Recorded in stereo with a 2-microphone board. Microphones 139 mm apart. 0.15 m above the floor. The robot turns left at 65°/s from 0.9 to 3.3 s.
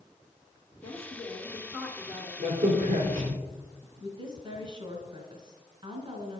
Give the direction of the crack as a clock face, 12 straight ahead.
2 o'clock.